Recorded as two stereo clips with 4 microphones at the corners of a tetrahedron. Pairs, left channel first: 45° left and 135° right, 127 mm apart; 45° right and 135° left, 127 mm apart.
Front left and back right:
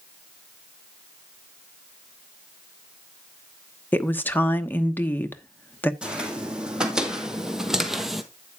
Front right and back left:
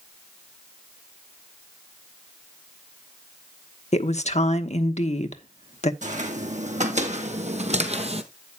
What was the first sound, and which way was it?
A woman speaking, 30° right.